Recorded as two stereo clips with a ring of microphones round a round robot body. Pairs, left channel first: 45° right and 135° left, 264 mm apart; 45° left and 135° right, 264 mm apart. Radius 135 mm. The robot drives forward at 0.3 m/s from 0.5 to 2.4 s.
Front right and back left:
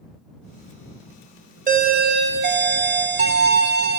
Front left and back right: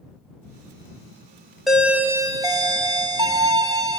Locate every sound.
1.7 s a doorbell: 135° left, 0.7 m; by 4.0 s 155° left, 0.8 m